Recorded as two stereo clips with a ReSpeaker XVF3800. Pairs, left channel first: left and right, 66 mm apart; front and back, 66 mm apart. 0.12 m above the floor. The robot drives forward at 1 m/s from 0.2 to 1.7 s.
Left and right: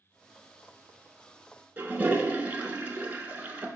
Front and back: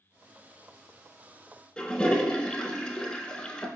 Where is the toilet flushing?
60° right, 0.6 m.